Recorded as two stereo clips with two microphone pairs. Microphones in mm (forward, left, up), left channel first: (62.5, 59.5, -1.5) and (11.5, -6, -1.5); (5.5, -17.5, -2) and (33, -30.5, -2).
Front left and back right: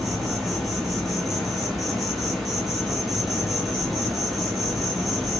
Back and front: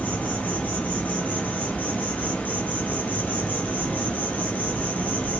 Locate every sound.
0.0 s an insect: 140° left, 1.5 m